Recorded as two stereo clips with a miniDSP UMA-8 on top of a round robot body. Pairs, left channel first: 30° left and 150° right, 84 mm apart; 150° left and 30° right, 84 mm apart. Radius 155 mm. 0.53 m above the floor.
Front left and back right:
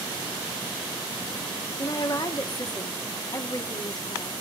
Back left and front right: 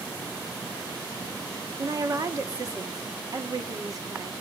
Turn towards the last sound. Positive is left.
turn(degrees=10)